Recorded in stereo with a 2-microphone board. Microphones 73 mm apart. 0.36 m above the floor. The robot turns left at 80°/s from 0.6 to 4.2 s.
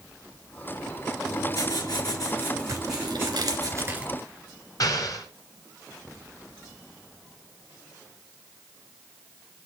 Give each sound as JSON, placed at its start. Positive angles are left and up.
{"t": 1.2, "sound": "writing", "azimuth_deg": 125, "distance_m": 4.0}
{"t": 2.7, "sound": "tearing paper", "azimuth_deg": -50, "distance_m": 2.0}
{"t": 4.8, "sound": "an explosion", "side_deg": 60, "distance_m": 3.0}